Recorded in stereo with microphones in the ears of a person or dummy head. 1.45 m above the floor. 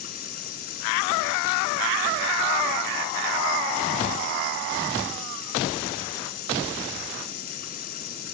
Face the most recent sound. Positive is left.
turn(degrees=45)  # may be behind; listen again after turning